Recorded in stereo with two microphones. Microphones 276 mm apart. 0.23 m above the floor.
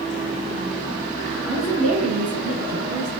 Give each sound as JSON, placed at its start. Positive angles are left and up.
{"t": 1.5, "sound": "a woman speaking", "side_deg": -55, "distance_m": 2.5}